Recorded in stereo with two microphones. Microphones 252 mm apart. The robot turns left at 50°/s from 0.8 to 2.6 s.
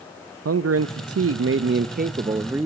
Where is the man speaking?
80° right, 0.6 m; by 2.7 s 170° right, 0.6 m.